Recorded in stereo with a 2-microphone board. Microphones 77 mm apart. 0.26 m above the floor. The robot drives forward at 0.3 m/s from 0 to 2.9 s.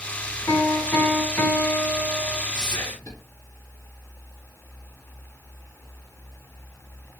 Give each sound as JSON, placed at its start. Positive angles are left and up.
{"t": 0.5, "sound": "a piano", "side_deg": 30, "distance_m": 1.8}
{"t": 2.5, "sound": "whispering", "side_deg": 55, "distance_m": 3.0}